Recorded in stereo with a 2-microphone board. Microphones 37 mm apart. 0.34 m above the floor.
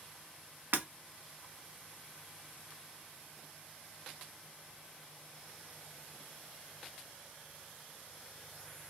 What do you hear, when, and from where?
0.7 s breaking glass: 65° right (ahead or behind), 1.0 m